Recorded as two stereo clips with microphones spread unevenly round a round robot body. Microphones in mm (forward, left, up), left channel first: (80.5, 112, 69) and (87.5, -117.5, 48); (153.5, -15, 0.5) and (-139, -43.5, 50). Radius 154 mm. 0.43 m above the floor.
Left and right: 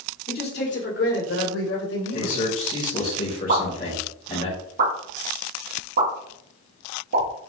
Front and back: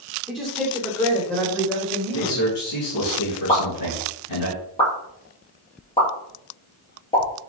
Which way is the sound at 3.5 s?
65° right.